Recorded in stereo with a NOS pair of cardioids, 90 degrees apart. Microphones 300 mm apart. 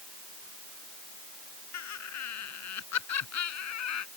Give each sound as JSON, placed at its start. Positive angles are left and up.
{"t": 1.7, "sound": "laughter", "azimuth_deg": 60}